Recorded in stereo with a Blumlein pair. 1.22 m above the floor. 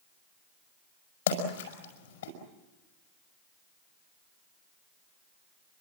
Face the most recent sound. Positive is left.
turn(degrees=55)